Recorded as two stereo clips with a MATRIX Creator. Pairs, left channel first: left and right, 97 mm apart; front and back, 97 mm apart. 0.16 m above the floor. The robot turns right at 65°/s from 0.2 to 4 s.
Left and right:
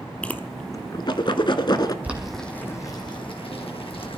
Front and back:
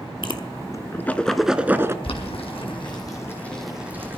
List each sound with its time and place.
0.2 s a whoosh: 15° left, 0.8 m; by 1.9 s 125° left, 0.8 m
2.0 s boiling: 15° right, 2.5 m; by 4.2 s 110° left, 2.5 m